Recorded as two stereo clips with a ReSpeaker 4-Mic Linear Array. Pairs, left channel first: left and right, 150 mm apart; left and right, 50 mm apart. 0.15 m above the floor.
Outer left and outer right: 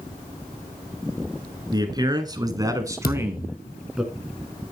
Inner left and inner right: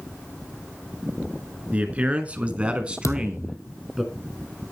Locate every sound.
1.7 s a man speaking: 25° right (ahead or behind), 1.9 m; by 4.0 s 5° right (ahead or behind), 1.7 m
3.0 s a thud: 75° left (ahead or behind), 1.8 m